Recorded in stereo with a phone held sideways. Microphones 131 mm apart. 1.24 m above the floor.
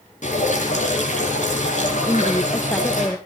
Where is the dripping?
65° left (ahead or behind), 7.5 m.